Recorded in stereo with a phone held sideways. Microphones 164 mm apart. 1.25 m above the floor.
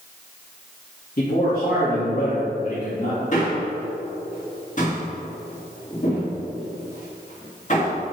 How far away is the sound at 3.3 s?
About 2 m.